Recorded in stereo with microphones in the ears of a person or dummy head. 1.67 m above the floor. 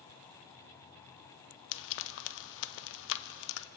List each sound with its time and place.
1.7 s frying: 65° left (ahead or behind), 1.1 m